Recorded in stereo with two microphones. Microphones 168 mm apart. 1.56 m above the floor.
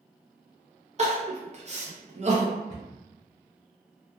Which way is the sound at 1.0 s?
40° right (ahead or behind).